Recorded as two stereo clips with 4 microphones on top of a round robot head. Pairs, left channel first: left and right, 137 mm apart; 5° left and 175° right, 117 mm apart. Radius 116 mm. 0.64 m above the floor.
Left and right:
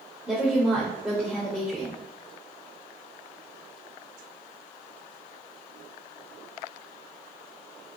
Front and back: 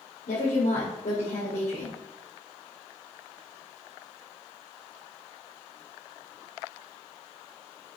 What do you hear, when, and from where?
0.3 s a woman speaking: 5° right, 2.5 m